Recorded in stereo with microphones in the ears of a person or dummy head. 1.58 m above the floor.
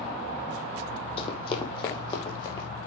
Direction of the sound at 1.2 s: 30° left (ahead or behind).